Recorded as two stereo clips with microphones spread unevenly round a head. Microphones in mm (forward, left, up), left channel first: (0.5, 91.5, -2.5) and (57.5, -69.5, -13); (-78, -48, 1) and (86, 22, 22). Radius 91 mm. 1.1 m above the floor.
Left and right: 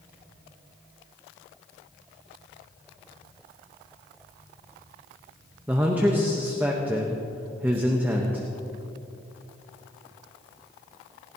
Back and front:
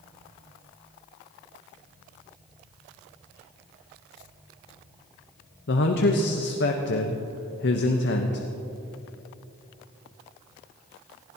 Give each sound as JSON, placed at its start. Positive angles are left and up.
{"t": 5.7, "sound": "a man speaking", "azimuth_deg": -150, "distance_m": 1.0}